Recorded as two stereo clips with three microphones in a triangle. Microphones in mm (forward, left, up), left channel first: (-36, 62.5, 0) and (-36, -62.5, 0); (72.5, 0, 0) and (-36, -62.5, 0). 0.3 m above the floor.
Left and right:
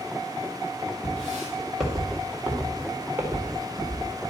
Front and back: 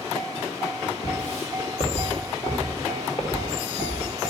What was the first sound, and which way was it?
Footsteps, 10° left.